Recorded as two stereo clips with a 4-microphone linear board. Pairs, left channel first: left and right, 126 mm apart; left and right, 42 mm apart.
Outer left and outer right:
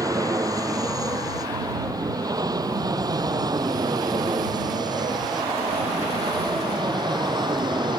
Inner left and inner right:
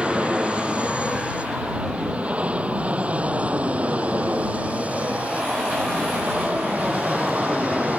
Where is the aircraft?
25° right (ahead or behind); by 8.0 s 35° right (ahead or behind).